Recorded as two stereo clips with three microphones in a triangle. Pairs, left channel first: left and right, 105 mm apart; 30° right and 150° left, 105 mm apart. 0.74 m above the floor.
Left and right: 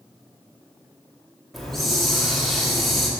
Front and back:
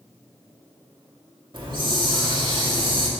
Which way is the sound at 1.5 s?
Straight behind.